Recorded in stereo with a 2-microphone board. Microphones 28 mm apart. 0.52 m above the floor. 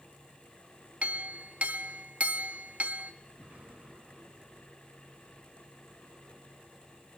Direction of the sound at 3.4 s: 75° right (ahead or behind).